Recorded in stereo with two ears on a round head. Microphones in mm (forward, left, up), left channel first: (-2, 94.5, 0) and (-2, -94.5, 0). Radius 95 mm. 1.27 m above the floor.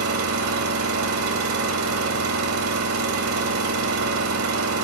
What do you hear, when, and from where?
0.0 s an engine running: 80° right, 1.6 m